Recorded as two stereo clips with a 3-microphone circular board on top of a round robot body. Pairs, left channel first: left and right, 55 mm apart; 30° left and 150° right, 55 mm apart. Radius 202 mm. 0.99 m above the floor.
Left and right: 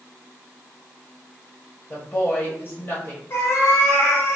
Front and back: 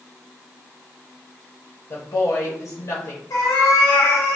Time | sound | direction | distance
1.9 | a woman speaking | 35° left | 1.1 m
3.3 | a cat meowing | 40° left | 0.6 m